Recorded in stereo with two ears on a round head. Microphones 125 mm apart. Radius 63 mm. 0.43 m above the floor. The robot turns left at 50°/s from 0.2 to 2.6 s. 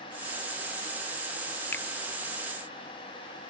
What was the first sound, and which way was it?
A finger snap, 15° left (ahead or behind).